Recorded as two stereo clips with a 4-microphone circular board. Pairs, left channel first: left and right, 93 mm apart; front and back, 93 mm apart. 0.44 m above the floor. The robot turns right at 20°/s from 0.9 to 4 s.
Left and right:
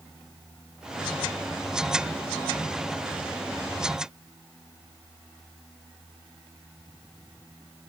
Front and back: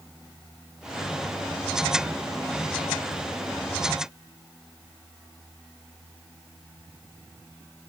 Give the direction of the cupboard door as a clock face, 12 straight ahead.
I don't hear a cupboard door.